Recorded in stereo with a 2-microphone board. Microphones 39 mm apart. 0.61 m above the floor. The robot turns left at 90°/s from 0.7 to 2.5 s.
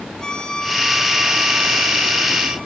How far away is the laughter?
No laughter in this recording.